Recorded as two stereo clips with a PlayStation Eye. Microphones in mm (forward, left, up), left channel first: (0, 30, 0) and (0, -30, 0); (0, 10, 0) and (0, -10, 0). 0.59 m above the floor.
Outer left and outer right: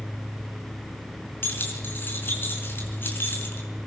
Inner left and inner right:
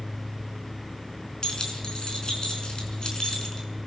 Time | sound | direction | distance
1.4 | keys jangling | 40° left (ahead or behind) | 4.5 m